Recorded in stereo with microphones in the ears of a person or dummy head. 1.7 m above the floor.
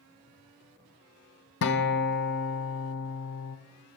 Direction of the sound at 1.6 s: 60° left (ahead or behind).